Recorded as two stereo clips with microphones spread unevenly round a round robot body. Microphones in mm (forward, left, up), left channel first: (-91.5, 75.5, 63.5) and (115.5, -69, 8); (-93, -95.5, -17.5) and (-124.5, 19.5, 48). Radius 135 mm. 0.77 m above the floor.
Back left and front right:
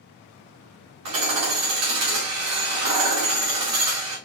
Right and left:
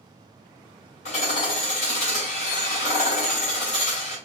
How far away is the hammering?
About 2.5 m.